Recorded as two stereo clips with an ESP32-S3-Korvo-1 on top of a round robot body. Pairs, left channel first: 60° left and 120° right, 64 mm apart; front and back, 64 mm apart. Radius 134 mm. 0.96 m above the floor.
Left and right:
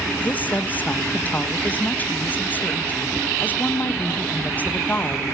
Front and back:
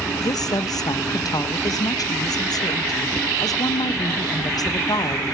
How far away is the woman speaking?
About 1.5 m.